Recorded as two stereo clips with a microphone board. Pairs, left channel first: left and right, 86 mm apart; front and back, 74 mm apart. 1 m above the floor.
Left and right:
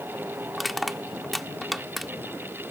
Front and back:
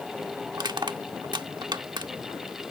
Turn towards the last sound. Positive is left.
turn(degrees=180)